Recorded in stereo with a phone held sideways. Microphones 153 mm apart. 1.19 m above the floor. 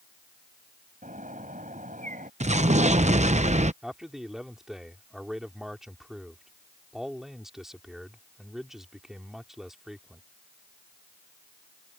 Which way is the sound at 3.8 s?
5° right (ahead or behind).